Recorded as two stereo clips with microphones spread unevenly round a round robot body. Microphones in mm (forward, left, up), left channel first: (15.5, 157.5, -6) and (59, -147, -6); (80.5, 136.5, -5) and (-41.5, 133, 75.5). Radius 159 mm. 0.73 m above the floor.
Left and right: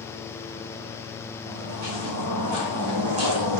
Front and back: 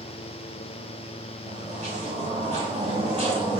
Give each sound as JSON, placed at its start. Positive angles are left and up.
{"t": 1.4, "sound": "footsteps", "azimuth_deg": -130, "distance_m": 4.0}